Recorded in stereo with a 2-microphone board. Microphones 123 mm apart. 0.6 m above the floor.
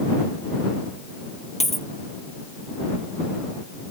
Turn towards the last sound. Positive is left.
turn(degrees=60)  # may be behind; listen again after turning